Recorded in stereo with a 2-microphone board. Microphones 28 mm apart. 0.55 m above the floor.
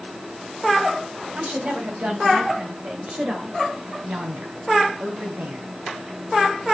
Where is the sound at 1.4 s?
60° right (ahead or behind), 4 m; by 3.6 s 30° right (ahead or behind), 2.5 m.